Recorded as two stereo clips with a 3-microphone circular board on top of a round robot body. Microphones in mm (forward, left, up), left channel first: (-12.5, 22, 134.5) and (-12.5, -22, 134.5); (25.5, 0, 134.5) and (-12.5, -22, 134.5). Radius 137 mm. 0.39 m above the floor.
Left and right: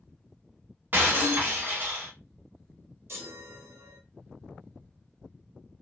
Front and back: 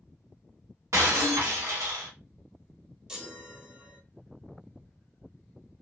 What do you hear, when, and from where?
0.9 s breaking glass: 140° right, 0.7 m
3.1 s a chime: 75° right, 0.8 m